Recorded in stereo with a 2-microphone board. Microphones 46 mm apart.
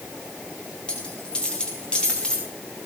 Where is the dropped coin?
20° left (ahead or behind), 6.5 m.